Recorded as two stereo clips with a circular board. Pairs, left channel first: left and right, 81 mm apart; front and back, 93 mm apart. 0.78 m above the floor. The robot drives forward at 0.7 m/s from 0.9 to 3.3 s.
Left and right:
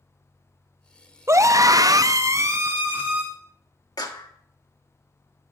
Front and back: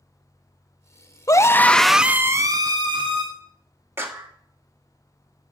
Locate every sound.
1.3 s a scream: 45° right, 0.7 m; by 3.2 s 155° right, 1.1 m
4.0 s a clap: 115° left, 1.1 m